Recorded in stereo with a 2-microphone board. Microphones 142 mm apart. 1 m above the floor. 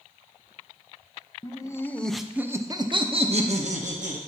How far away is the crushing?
I don't hear crushing.